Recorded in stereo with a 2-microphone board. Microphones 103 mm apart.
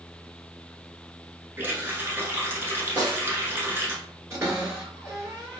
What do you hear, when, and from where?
1.6 s a running tap: 25° right (ahead or behind), 0.8 m
3.0 s a snare drum: 45° right (ahead or behind), 1.4 m
4.3 s a cupboard door: 30° right (ahead or behind), 1.8 m